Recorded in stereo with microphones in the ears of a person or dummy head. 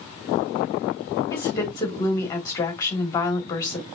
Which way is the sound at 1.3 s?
15° left (ahead or behind).